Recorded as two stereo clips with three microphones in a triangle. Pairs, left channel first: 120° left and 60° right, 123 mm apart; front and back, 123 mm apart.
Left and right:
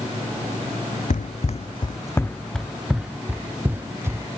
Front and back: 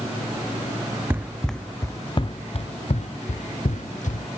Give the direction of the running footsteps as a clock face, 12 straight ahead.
8 o'clock.